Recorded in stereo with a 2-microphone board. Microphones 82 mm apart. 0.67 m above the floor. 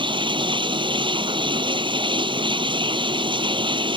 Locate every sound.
0.0 s running water: 85° right